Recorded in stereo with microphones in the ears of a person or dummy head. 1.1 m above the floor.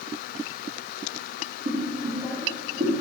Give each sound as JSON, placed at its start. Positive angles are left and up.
{"t": 1.6, "sound": "boiling", "side_deg": -55, "distance_m": 1.3}